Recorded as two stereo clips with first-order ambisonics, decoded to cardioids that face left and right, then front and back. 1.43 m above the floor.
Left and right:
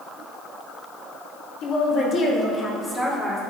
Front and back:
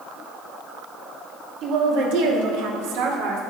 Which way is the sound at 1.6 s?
135° left.